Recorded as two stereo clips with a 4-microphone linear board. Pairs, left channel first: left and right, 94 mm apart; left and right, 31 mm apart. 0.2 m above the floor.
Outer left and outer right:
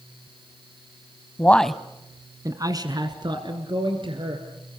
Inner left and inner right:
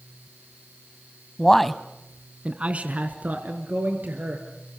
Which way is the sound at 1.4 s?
20° left (ahead or behind).